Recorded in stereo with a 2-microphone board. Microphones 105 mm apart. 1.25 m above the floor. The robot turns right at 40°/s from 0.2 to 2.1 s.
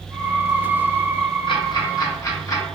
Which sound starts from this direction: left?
Ticking, at 1.5 s.